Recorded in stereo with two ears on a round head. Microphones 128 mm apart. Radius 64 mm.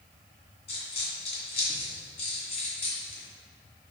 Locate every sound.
0.7 s a dropped coin: 40° left (ahead or behind), 2.5 m